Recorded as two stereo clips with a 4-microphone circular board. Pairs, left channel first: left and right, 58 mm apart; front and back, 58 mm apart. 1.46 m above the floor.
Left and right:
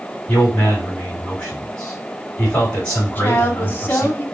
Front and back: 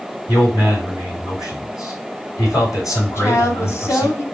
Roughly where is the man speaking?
Ahead.